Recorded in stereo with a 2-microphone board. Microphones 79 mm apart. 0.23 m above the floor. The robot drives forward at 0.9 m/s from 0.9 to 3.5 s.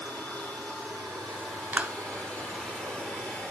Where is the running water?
10° left (ahead or behind), 5 m; by 3.5 s 15° left (ahead or behind), 2.5 m.